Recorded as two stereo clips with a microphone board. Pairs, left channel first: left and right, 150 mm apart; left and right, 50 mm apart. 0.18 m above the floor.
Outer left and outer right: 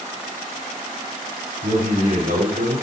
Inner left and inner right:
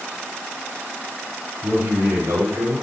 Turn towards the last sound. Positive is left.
turn(degrees=-70)  # may be behind; listen again after turning